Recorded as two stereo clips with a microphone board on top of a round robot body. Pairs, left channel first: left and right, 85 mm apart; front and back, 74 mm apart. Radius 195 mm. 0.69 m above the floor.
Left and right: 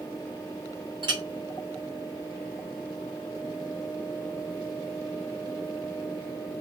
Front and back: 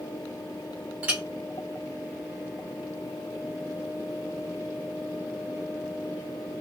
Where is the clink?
110° right, 1.1 m.